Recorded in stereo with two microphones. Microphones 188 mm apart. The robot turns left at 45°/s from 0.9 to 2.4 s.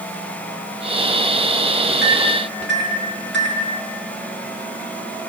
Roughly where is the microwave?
Right.